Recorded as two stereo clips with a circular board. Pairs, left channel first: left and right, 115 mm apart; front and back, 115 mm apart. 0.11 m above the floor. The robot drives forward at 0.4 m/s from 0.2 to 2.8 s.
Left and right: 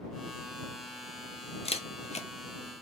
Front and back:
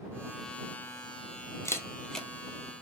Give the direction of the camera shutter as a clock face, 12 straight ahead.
10 o'clock.